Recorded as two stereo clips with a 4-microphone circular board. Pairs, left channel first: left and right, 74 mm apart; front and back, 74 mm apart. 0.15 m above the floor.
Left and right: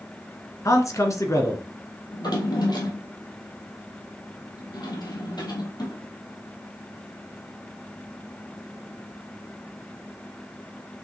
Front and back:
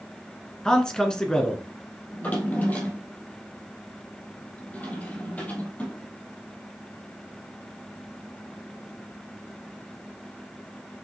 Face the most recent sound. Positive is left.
turn(degrees=70)